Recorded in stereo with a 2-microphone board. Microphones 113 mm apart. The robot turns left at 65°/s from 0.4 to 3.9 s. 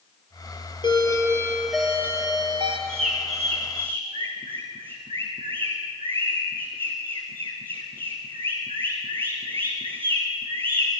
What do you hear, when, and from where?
0.8 s a doorbell: 55° left, 4 m; by 2.8 s 70° right, 4 m
2.9 s a bird: 60° right (ahead or behind), 5 m; by 10.9 s 55° right (ahead or behind), 5 m